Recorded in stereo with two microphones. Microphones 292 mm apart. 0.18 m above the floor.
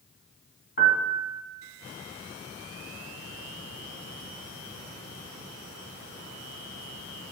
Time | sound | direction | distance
0.8 | a piano | 35° left (ahead or behind) | 1.1 m